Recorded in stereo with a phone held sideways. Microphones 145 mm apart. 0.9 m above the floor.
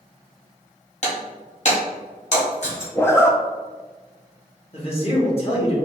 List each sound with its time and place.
1.0 s breaking glass: 50° left (ahead or behind), 1.4 m
3.0 s a zipper: 15° left (ahead or behind), 0.5 m
4.7 s a man speaking: 40° left (ahead or behind), 1.4 m